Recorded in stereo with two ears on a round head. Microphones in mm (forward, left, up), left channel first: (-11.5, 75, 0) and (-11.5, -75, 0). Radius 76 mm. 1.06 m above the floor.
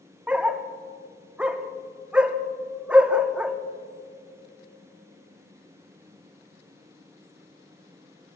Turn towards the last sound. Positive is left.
turn(degrees=-5)  # may be behind; listen again after turning